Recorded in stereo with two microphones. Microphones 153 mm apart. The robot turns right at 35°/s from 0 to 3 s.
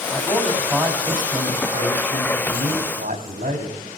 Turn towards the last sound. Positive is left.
turn(degrees=-90)